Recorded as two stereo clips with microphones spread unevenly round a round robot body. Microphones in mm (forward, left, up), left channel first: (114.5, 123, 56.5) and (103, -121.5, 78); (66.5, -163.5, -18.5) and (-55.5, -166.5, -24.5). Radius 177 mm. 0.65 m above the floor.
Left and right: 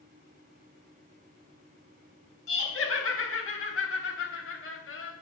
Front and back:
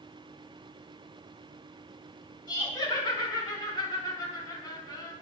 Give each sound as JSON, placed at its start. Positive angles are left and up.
{"t": 2.5, "sound": "laughter", "azimuth_deg": 60, "distance_m": 4.5}